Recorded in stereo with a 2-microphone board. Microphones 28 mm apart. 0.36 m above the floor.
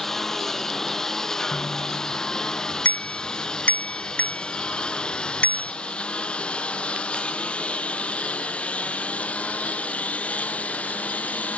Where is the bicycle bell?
65° left (ahead or behind).